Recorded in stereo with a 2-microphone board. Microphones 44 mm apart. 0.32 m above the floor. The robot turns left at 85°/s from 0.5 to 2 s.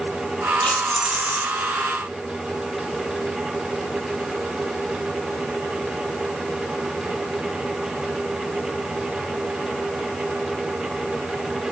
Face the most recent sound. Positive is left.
turn(degrees=-85)